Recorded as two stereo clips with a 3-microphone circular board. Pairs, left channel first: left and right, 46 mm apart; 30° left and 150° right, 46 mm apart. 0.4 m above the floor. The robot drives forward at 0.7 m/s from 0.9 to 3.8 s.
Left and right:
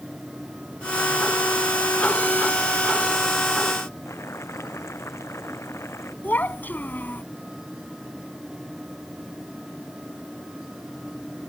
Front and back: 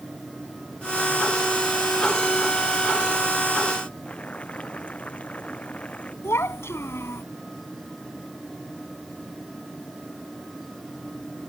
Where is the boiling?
95° left.